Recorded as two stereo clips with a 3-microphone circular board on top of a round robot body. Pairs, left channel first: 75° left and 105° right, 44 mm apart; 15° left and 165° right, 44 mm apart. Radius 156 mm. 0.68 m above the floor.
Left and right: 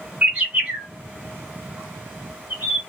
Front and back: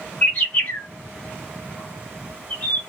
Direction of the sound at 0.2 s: 45° right.